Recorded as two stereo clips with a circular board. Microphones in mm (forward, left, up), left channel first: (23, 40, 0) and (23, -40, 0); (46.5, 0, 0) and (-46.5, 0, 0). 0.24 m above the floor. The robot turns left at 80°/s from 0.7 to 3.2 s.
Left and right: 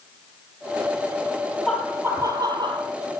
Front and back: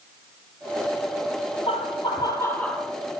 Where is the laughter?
5° right, 5.5 m; by 2.9 s 105° right, 5.5 m.